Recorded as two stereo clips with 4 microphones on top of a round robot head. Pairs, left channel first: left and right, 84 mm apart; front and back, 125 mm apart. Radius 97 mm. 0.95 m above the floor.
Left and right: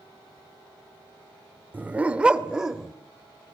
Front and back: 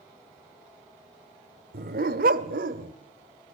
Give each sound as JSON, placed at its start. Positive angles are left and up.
{"t": 1.7, "sound": "a dog barking", "azimuth_deg": -160, "distance_m": 1.2}